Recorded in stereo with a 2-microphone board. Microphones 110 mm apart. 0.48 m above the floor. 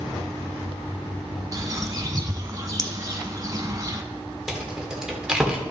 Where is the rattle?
5° right (ahead or behind), 1.7 m.